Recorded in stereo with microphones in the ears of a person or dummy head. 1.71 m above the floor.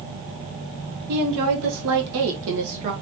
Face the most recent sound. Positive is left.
turn(degrees=-30)  # may be behind; listen again after turning